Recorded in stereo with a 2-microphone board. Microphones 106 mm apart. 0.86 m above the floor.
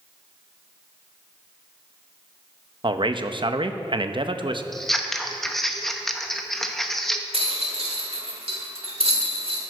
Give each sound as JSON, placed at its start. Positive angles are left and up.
{"t": 2.8, "sound": "a man speaking", "side_deg": -50, "distance_m": 0.6}
{"t": 4.7, "sound": "scissors", "side_deg": 0, "distance_m": 0.8}
{"t": 7.3, "sound": "a rattle", "side_deg": -65, "distance_m": 1.7}